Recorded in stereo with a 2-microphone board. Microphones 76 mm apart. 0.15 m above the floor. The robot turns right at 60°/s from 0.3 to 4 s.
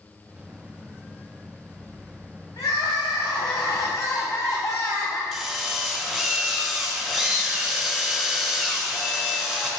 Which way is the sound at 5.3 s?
Centre (ahead or behind).